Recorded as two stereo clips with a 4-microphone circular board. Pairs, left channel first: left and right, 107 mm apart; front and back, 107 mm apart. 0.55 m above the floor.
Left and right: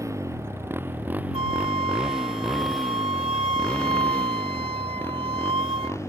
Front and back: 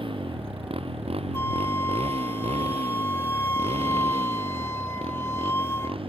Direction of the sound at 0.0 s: 150° right.